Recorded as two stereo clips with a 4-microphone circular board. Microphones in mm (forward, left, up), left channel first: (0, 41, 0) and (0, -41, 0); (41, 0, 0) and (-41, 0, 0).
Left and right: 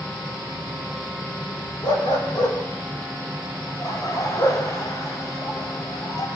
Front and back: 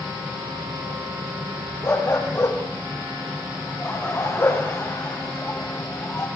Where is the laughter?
50° left, 3 m.